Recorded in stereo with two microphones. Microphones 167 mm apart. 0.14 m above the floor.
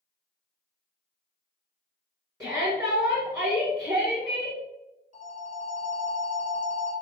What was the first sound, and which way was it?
A shout, 20° right (ahead or behind).